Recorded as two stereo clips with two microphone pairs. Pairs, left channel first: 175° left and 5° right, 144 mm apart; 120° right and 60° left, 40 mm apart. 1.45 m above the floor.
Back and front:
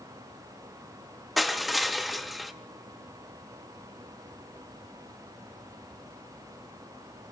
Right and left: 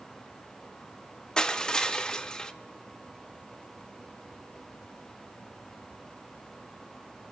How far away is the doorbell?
I don't hear a doorbell.